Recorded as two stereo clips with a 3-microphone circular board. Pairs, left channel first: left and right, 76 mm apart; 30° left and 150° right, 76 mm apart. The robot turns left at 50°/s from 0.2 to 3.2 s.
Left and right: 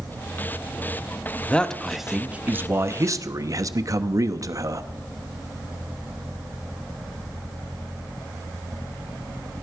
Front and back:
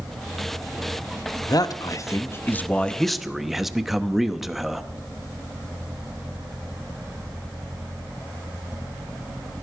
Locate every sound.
1.5 s a man speaking: 25° left, 0.8 m; by 4.9 s 65° right, 0.8 m